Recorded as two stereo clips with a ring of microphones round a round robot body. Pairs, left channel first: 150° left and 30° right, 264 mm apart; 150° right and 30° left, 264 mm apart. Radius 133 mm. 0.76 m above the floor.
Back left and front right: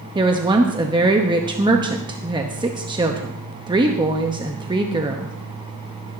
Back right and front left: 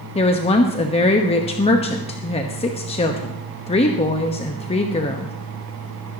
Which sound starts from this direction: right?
A woman speaking, at 0.1 s.